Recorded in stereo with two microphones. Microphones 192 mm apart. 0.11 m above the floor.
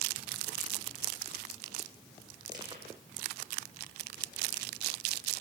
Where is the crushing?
20° right (ahead or behind), 5 m.